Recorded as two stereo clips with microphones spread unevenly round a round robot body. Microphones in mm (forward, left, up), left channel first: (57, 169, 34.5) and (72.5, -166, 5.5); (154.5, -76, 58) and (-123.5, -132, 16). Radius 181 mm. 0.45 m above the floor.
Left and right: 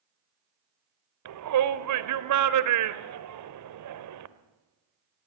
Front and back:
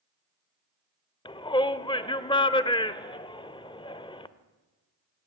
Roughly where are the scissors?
No scissors in this recording.